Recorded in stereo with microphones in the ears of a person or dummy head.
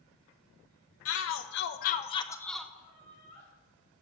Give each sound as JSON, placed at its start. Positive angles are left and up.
{"t": 1.1, "sound": "a shout", "side_deg": 75, "distance_m": 1.1}
{"t": 2.8, "sound": "laughter", "side_deg": 35, "distance_m": 5.0}